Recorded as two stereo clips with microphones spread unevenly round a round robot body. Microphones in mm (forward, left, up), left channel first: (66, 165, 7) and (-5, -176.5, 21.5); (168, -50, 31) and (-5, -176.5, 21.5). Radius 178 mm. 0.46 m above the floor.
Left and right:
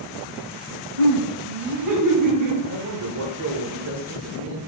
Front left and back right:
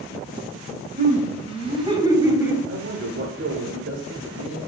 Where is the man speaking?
145° right, 1.3 m.